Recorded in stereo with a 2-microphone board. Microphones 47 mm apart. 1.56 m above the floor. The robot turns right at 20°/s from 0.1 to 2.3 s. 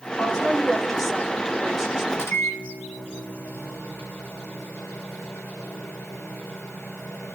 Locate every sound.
0.2 s a woman speaking: 160° left, 4.5 m; by 2.0 s 165° right, 4.5 m
2.1 s a microwave: 80° left, 4 m